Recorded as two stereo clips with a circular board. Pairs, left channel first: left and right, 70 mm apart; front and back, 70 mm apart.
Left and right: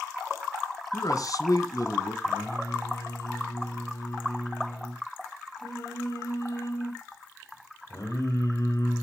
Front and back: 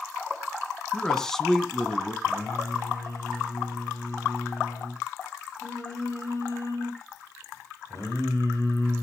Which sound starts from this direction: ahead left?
Singing, at 2.2 s.